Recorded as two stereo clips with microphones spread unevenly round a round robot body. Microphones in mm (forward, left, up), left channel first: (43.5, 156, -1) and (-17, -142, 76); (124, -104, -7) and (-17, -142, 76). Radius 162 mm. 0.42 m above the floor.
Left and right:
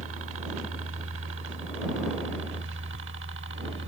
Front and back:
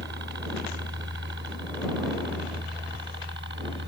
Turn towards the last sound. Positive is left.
turn(degrees=-160)